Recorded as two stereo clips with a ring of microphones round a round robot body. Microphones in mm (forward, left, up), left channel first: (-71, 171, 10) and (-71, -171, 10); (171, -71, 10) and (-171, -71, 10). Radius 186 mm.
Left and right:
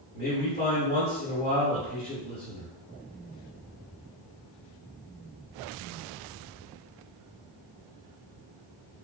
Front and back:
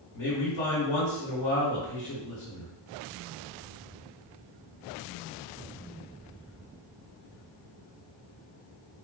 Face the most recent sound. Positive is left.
turn(degrees=25)